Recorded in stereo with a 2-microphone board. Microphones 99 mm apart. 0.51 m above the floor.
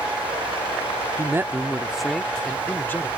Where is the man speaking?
30° right (ahead or behind); by 3.1 s 25° left (ahead or behind).